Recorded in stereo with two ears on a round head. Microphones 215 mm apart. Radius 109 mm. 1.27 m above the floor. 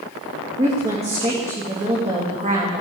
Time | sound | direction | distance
0.6 | a woman speaking | 25° right (ahead or behind) | 2.5 m